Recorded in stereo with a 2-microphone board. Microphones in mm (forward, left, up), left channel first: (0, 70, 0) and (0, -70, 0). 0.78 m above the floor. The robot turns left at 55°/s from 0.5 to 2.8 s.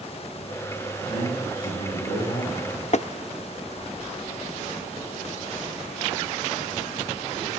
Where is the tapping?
55° left (ahead or behind), 0.5 m.